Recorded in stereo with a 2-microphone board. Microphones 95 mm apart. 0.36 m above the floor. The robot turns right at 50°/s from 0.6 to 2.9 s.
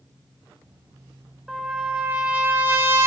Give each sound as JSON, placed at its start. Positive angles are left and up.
{"t": 1.5, "sound": "a trumpet", "azimuth_deg": -175, "distance_m": 1.3}